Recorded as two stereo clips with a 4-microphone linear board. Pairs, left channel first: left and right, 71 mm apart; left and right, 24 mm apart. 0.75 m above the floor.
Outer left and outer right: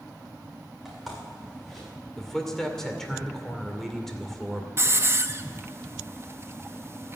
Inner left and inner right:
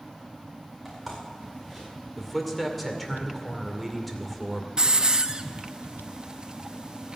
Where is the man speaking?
5° left (ahead or behind), 2.5 m.